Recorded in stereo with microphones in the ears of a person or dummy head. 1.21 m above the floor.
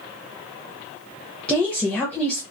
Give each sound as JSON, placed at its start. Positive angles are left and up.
{"t": 1.5, "sound": "a woman speaking", "side_deg": 10, "distance_m": 0.7}